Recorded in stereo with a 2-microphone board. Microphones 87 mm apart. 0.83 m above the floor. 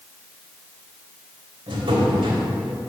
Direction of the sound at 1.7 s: 80° right.